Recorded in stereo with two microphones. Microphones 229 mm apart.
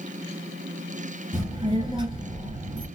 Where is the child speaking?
20° right (ahead or behind), 1.9 m.